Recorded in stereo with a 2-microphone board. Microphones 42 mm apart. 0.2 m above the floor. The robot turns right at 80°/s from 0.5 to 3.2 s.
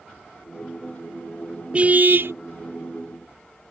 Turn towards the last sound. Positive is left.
turn(degrees=-35)